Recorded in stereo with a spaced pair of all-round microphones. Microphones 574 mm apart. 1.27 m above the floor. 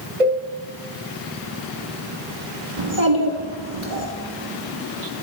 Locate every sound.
0.2 s a cowbell: 80° right, 1.4 m
2.8 s a child speaking: 60° right (ahead or behind), 1.2 m